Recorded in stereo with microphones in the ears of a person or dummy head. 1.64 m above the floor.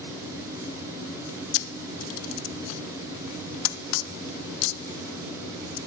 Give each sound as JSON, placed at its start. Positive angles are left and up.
{"t": 1.5, "sound": "a camera shutter", "side_deg": 75, "distance_m": 0.5}